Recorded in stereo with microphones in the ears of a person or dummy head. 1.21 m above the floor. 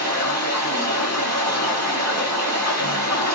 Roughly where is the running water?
Centre.